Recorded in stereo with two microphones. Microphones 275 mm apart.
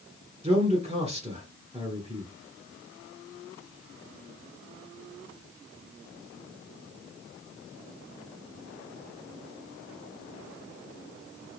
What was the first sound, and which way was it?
A man speaking, 20° right (ahead or behind).